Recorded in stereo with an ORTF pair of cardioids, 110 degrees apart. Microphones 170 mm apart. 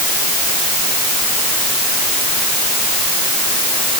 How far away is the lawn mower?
No lawn mower in this recording.